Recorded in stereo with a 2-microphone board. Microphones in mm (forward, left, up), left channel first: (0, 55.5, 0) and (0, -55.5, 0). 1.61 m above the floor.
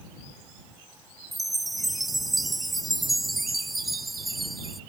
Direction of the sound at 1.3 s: Centre (ahead or behind).